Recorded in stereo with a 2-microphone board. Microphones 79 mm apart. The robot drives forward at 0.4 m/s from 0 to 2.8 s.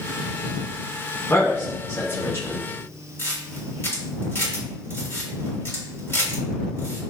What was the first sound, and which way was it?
A man speaking, 35° left (ahead or behind).